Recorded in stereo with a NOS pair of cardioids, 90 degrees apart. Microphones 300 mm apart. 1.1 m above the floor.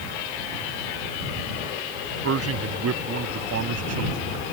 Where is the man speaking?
50° right; by 4.3 s 60° right.